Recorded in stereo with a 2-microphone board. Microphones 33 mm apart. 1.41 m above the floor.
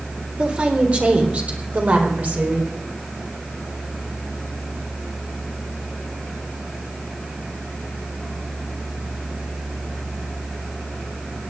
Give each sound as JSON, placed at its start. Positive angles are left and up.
{"t": 0.4, "sound": "a woman speaking", "side_deg": -40, "distance_m": 4.0}